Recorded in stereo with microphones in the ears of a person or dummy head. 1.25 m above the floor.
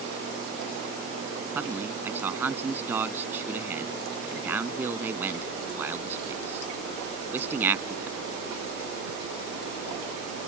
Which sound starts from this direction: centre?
A man speaking, at 1.6 s.